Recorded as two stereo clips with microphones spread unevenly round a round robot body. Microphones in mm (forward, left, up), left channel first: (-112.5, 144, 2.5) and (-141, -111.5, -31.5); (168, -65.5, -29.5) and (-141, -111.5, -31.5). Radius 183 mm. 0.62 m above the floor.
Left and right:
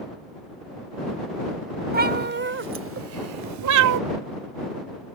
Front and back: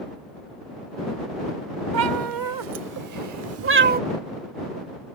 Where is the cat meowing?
155° right; by 4.0 s 105° right.